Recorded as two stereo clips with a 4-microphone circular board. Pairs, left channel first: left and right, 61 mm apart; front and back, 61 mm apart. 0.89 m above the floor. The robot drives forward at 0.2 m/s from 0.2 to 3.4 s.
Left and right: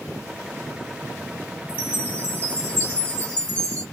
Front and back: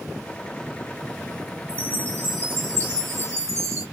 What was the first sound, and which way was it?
A chime, 145° left.